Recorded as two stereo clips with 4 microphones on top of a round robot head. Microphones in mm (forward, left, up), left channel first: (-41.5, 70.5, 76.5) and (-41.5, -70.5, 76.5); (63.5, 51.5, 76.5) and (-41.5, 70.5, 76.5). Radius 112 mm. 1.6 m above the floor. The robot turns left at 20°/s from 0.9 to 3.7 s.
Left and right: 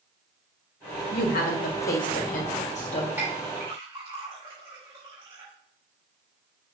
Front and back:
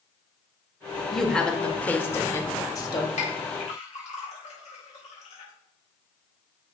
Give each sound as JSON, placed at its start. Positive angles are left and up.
{"t": 1.1, "sound": "a woman speaking", "azimuth_deg": 80, "distance_m": 1.5}
{"t": 3.2, "sound": "a clink", "azimuth_deg": -10, "distance_m": 4.0}